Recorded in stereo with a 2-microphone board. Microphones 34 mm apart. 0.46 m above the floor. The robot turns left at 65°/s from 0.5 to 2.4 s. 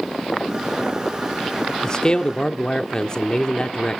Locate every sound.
1.8 s a man speaking: 20° left (ahead or behind), 0.9 m